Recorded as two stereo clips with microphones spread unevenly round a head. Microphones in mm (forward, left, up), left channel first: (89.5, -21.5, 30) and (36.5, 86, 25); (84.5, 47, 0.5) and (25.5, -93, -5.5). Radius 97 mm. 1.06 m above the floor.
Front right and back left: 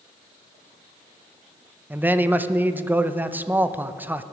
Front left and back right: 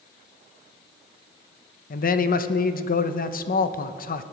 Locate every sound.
1.9 s a man speaking: 40° left, 0.7 m